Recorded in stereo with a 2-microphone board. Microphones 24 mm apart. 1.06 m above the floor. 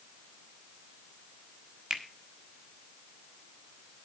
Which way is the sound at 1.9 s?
35° right (ahead or behind).